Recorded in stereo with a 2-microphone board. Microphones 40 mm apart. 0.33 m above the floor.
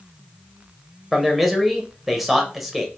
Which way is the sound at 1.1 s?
5° right (ahead or behind).